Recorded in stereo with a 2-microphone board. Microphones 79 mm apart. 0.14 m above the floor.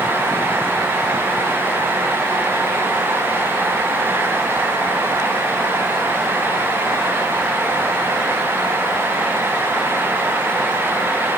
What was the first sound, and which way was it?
Only background noise.